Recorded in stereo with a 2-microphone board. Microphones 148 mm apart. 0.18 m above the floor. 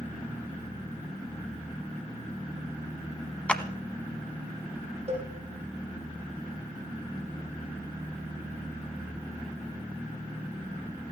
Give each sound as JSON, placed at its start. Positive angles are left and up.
{"t": 3.5, "sound": "a clap", "side_deg": 10, "distance_m": 0.9}
{"t": 5.1, "sound": "a cowbell", "side_deg": -40, "distance_m": 7.0}